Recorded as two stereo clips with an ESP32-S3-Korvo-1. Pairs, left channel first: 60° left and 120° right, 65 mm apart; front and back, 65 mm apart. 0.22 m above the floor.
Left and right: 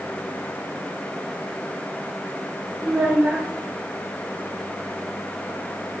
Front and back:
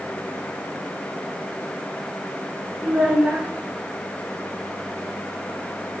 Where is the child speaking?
135° right, 1.0 m.